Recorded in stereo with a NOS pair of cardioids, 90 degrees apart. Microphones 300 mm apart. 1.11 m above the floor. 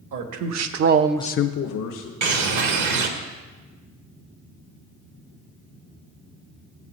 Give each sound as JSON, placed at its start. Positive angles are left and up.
{"t": 0.1, "sound": "a man speaking", "azimuth_deg": -70, "distance_m": 1.6}
{"t": 2.2, "sound": "a bird", "azimuth_deg": -65, "distance_m": 1.3}